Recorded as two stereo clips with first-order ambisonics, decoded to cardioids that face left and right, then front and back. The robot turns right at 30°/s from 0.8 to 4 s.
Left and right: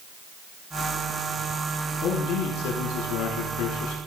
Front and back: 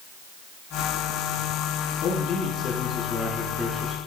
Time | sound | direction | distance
2.0 | a man speaking | 45° left | 7.5 m